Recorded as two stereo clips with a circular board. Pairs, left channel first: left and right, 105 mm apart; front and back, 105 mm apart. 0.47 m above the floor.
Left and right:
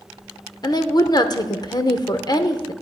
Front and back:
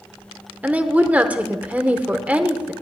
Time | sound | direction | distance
0.6 | a woman speaking | 110° left | 0.9 m